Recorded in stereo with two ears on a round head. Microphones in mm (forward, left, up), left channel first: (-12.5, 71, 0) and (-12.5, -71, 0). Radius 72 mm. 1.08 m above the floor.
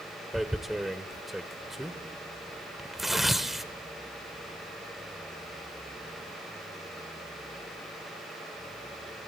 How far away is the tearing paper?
About 1.1 m.